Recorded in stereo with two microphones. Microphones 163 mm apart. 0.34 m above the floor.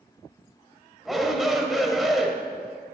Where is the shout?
Centre (ahead or behind), 1.2 m.